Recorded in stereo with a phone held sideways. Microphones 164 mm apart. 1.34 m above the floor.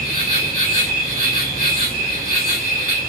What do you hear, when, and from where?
0.0 s an insect: 60° right (ahead or behind), 2 m